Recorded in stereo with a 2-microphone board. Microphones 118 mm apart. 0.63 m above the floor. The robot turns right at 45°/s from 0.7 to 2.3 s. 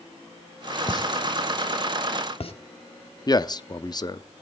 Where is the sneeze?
No sneeze in this recording.